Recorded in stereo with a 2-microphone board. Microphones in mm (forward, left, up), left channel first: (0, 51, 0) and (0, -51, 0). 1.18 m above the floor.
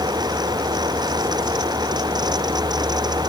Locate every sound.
Only background noise.